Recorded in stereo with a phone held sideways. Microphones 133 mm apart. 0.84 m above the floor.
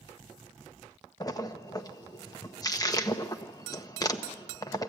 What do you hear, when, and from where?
1.2 s a splash: 25° left (ahead or behind), 1.0 m